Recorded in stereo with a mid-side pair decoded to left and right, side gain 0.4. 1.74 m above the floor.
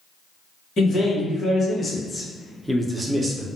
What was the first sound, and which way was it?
A man speaking, 55° left.